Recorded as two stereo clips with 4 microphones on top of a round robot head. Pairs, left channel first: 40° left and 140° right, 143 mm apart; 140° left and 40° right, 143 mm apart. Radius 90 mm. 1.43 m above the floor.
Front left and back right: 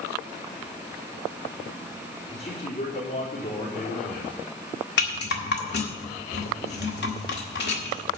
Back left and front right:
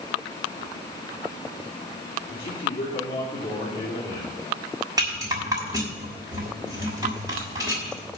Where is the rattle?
25° left, 1.7 m.